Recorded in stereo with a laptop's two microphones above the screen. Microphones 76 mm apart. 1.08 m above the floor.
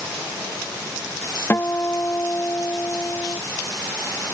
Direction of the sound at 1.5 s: 35° left (ahead or behind).